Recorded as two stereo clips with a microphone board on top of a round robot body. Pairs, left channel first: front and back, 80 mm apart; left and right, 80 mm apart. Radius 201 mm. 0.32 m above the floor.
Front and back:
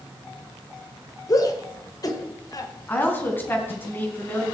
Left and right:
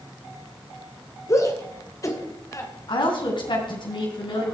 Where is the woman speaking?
70° left, 4 m.